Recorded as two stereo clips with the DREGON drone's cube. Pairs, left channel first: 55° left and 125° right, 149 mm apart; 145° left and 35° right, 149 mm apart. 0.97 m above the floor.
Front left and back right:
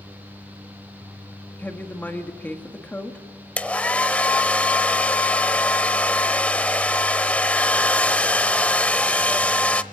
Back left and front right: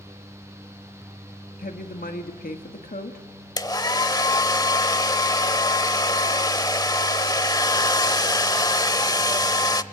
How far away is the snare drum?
I don't hear a snare drum.